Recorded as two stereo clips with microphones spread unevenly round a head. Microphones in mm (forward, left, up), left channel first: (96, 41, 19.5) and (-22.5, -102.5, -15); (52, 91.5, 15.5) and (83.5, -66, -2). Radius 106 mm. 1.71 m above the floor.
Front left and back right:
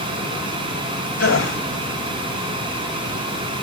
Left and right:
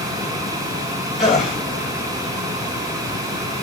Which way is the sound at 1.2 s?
10° left.